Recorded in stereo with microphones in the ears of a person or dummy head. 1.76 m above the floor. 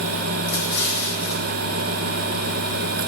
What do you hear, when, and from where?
0.5 s an explosion: 60° left (ahead or behind), 2.5 m